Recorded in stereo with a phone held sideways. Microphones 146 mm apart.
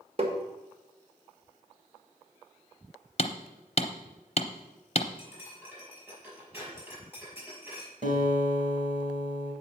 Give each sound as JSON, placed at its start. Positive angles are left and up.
{"t": 0.2, "sound": "tapping", "side_deg": -40, "distance_m": 1.5}
{"t": 3.2, "sound": "hammering", "side_deg": 45, "distance_m": 0.7}
{"t": 5.2, "sound": "cutlery clinking", "side_deg": -15, "distance_m": 5.5}
{"t": 8.0, "sound": "a guitar", "side_deg": -60, "distance_m": 2.5}